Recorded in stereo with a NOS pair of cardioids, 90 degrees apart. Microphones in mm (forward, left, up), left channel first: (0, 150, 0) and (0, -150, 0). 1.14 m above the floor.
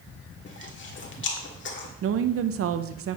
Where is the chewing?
40° left, 1.8 m.